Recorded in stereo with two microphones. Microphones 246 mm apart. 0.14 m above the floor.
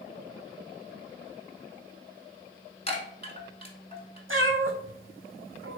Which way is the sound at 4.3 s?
60° right (ahead or behind).